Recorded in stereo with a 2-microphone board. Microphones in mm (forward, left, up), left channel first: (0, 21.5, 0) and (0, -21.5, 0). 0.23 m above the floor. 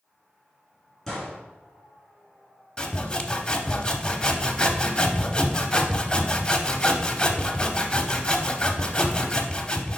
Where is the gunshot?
10° left (ahead or behind), 3 m.